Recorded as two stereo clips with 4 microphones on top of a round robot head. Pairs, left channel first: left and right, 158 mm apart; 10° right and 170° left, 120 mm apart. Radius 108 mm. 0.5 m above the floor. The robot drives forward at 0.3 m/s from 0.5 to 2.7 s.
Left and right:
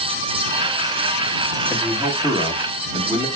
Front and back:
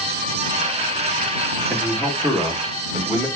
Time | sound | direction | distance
1.7 | a man speaking | 80° right | 1.3 m